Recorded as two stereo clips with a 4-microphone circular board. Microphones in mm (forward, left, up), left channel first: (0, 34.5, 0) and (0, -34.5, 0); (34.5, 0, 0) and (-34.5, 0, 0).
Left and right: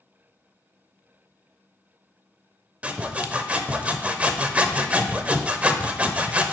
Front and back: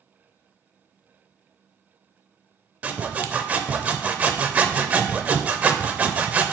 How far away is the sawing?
About 0.6 m.